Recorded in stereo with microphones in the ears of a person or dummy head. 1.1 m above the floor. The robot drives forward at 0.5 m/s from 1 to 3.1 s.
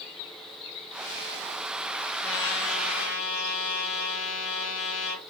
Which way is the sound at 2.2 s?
70° left (ahead or behind).